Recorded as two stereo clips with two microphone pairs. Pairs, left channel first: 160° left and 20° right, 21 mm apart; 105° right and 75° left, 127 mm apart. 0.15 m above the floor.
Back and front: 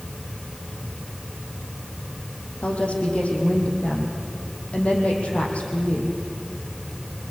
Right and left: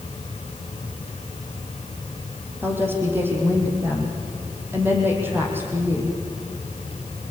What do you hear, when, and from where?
2.6 s a woman speaking: 150° left, 7 m